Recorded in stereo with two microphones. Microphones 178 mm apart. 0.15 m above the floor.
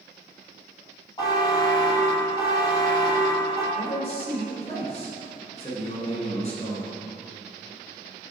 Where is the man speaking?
35° left (ahead or behind), 1.8 m.